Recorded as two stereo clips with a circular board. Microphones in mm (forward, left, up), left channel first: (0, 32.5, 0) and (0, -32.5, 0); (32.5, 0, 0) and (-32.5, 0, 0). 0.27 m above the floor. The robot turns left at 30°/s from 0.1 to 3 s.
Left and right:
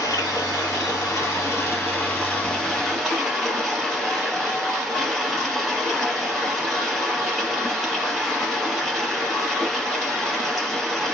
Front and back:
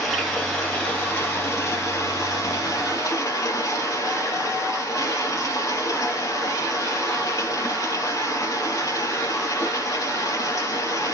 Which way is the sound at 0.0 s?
90° left.